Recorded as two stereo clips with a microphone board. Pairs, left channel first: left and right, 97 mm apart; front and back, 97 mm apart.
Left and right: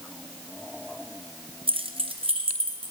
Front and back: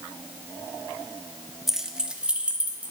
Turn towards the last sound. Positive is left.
turn(degrees=-105)